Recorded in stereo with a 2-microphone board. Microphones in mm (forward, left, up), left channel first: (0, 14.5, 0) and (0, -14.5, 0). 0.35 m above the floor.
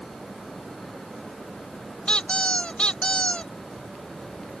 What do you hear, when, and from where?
2.1 s a squeak: 40° left (ahead or behind)